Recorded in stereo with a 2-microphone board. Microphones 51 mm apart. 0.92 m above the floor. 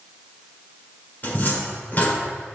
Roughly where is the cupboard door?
Left.